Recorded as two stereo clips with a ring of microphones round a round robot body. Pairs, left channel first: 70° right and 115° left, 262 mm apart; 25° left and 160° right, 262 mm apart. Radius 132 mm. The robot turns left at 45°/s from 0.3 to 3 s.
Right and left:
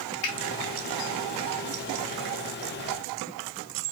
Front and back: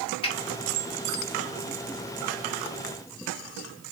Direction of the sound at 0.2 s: 45° right.